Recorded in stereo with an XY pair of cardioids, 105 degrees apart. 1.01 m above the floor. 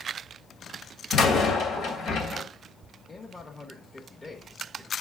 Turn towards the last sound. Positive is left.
turn(degrees=25)